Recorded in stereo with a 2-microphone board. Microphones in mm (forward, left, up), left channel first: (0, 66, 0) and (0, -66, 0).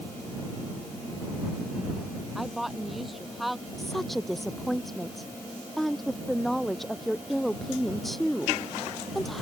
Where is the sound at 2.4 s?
Centre (ahead or behind).